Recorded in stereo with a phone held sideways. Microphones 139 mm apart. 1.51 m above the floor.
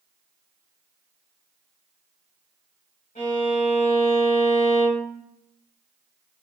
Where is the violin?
70° left (ahead or behind), 1.6 m.